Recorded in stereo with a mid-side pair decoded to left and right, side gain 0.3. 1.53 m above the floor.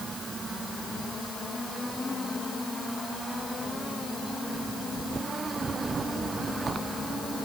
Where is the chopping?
I don't hear chopping.